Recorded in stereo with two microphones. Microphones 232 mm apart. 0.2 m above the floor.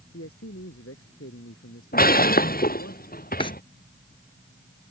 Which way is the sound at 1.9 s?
40° left (ahead or behind).